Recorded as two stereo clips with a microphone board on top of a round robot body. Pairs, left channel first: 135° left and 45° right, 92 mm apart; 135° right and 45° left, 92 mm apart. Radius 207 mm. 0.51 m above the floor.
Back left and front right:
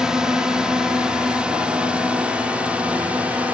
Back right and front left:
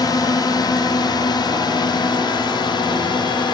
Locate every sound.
0.0 s a drone: 125° right; by 3.5 s 120° right